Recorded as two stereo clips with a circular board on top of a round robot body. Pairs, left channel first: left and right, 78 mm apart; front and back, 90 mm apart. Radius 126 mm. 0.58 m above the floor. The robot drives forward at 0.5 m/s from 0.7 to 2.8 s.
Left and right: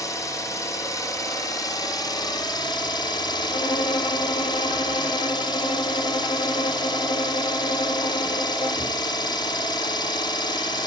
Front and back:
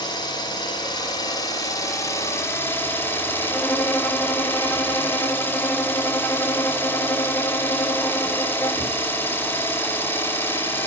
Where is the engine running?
40° left, 2.5 m; by 10.9 s 65° left, 1.7 m.